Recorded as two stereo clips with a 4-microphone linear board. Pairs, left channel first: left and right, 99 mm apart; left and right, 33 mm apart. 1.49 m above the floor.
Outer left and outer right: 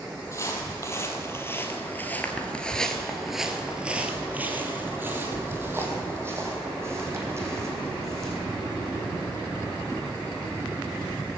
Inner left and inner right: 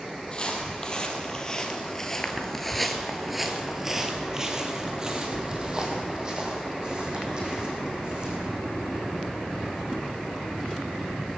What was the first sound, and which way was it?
Footsteps, 30° left (ahead or behind).